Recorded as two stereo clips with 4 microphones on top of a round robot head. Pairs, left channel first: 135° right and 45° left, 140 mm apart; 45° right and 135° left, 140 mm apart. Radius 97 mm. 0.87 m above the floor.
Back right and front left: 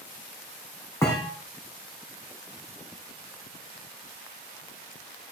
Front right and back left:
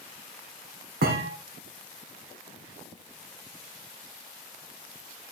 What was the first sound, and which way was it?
A thud, 155° left.